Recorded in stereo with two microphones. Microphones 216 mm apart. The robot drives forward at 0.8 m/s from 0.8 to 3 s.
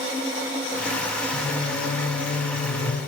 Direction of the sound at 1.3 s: 75° left (ahead or behind).